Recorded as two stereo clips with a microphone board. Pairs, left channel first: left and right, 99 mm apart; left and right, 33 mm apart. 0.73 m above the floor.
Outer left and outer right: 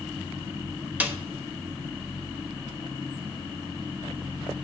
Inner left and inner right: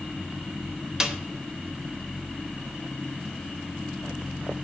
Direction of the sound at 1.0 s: 15° right (ahead or behind).